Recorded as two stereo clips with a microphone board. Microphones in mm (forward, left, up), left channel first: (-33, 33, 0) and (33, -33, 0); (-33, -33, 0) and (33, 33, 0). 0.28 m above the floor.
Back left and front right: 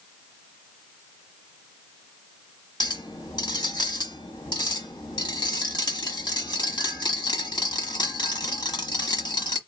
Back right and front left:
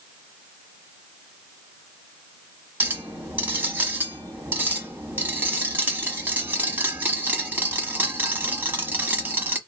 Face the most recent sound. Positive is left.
turn(degrees=115)